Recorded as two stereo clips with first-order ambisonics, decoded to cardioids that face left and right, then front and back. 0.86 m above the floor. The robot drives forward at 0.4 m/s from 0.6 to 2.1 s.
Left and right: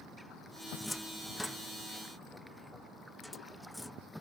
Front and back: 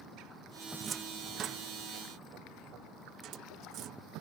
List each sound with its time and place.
0.8 s a cupboard door: 175° left